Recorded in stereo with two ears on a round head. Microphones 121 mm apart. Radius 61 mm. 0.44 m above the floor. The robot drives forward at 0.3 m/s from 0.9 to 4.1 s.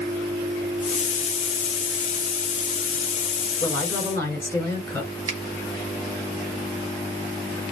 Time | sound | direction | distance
3.6 | a woman speaking | 15° left (ahead or behind) | 2.5 m
5.3 | a finger snap | 35° right (ahead or behind) | 2.5 m